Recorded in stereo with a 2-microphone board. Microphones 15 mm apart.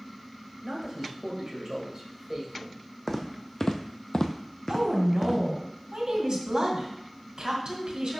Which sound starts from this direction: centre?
Footsteps, at 3.1 s.